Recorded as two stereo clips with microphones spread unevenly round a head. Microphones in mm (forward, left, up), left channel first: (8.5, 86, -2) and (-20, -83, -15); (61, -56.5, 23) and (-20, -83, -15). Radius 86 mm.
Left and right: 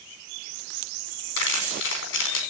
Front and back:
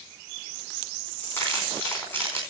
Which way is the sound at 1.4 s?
100° left.